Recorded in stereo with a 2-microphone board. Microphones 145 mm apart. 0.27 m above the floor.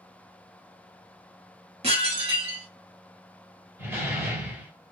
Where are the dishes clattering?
45° right (ahead or behind), 1.1 m.